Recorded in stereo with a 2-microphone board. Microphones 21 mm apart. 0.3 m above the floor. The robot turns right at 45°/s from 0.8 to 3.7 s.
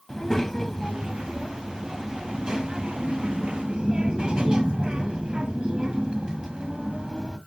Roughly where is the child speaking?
Behind left.